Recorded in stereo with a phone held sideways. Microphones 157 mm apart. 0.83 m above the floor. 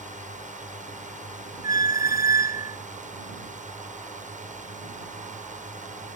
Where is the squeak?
65° left (ahead or behind).